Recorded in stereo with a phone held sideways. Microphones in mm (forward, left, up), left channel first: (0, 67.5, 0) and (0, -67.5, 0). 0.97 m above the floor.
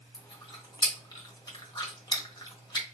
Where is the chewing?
30° left (ahead or behind), 1.0 m.